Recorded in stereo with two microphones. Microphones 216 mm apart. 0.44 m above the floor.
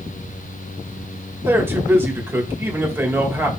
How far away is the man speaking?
About 1.8 m.